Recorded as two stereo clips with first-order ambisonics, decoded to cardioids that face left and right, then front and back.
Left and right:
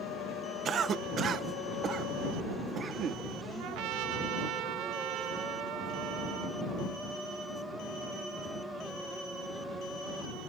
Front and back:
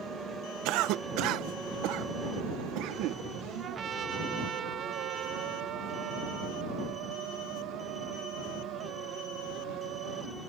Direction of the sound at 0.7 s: 150° right.